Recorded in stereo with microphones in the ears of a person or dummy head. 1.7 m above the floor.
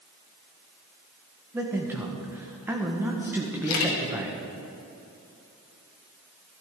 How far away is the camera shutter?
About 1.7 m.